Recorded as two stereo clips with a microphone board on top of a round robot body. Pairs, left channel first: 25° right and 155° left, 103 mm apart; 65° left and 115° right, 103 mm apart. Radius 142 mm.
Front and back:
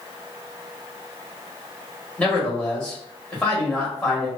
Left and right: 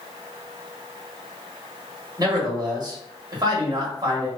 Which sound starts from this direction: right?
A man speaking, at 2.2 s.